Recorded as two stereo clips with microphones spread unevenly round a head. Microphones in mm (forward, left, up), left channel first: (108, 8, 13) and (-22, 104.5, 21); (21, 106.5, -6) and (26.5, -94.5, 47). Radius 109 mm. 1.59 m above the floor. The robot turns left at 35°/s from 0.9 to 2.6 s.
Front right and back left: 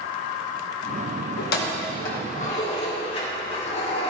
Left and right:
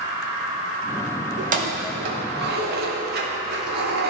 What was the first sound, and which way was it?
Keys jangling, 55° right.